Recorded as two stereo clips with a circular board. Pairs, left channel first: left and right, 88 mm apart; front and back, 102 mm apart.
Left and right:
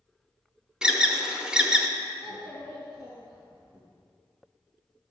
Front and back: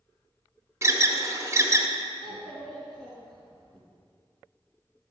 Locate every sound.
0.8 s an alarm: 160° right, 0.6 m
2.2 s a child speaking: 85° right, 3 m